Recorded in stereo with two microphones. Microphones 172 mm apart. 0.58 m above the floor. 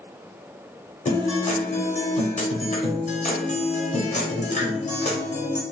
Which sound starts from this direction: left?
A guitar, at 1.1 s.